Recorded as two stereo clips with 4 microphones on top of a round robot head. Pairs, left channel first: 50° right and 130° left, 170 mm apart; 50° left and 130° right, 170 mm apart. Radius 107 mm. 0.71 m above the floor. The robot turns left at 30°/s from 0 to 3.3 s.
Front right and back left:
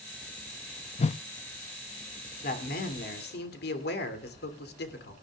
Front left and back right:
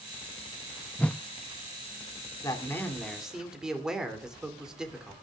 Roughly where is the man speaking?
Ahead.